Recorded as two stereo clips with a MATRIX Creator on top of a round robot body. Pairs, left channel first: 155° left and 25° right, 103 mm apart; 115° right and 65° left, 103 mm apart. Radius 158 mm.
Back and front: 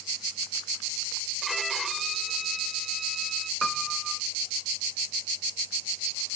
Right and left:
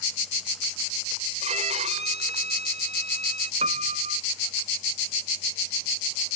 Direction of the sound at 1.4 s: 65° left.